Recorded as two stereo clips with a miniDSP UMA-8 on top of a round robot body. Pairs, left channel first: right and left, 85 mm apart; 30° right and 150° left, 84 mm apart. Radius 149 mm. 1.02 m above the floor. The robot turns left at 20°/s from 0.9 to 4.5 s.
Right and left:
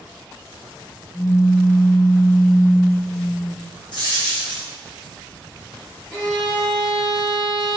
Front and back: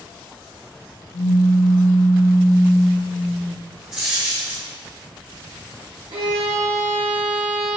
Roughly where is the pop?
Ahead.